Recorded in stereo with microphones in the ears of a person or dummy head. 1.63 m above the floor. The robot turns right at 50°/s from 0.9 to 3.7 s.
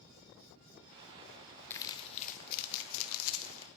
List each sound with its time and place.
1.7 s crumpling: 15° left (ahead or behind), 1.0 m; by 3.7 s 70° left (ahead or behind), 1.0 m